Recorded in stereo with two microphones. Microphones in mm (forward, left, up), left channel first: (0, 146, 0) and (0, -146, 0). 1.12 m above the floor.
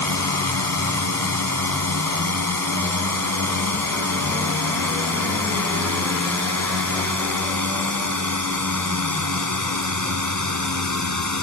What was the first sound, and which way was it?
A drone, 80° right.